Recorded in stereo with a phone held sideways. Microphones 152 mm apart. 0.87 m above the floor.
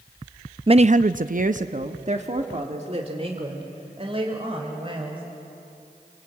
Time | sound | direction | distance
0.7 | a woman speaking | 35° right (ahead or behind) | 0.5 m